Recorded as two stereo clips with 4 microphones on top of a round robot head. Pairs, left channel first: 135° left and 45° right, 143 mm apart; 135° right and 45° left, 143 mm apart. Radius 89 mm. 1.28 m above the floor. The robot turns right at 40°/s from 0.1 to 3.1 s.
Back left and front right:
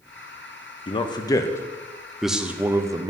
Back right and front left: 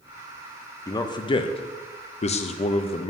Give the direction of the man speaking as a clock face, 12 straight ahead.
6 o'clock.